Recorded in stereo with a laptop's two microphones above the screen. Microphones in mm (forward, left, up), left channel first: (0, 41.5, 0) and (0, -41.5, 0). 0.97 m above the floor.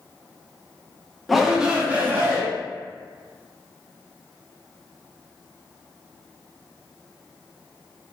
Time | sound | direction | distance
1.3 | a shout | centre (ahead or behind) | 0.8 m